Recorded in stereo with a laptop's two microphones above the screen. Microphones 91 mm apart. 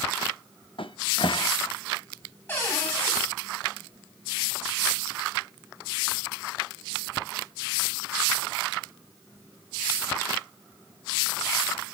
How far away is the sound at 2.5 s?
About 7.5 m.